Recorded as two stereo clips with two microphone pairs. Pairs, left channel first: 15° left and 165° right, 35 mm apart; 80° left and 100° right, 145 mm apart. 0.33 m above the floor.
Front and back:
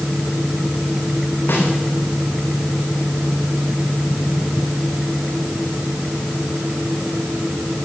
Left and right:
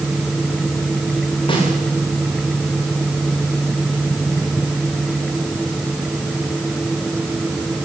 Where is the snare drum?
25° left, 8 m.